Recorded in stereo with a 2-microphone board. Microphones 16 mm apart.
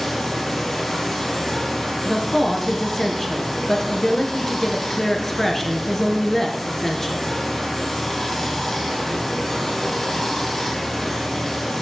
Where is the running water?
30° left (ahead or behind), 4 m.